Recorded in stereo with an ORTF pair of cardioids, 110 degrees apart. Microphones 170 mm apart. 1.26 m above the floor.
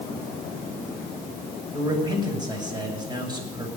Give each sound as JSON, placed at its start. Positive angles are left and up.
{"t": 1.7, "sound": "a man speaking", "azimuth_deg": -25, "distance_m": 6.5}